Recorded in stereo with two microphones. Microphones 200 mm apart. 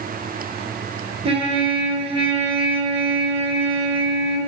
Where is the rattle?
No rattle in this recording.